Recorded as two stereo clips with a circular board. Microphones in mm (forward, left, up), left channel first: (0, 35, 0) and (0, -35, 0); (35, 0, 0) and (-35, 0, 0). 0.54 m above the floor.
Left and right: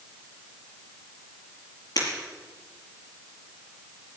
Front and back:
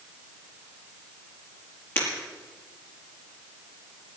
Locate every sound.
2.0 s breaking glass: 60° left, 5.5 m